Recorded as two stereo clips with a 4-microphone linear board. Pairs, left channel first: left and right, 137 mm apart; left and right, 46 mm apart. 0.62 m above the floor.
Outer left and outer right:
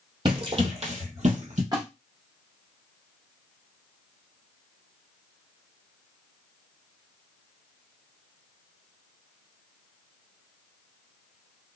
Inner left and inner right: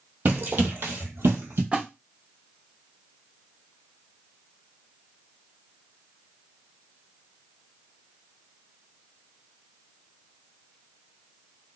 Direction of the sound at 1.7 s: 30° right (ahead or behind).